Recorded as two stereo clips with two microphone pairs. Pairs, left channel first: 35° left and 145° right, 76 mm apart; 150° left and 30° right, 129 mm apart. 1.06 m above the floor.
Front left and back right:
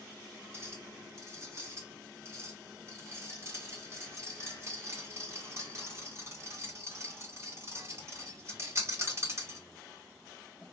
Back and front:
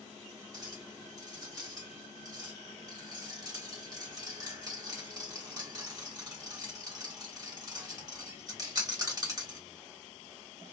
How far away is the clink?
About 1.3 m.